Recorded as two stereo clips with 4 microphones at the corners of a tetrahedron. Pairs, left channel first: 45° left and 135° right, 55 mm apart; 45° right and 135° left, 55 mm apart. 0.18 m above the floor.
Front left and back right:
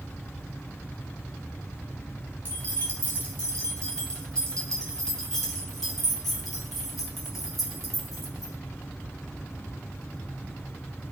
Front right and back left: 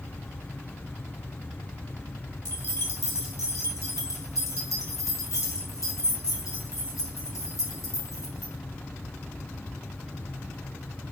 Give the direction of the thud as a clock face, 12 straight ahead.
No thud in this recording.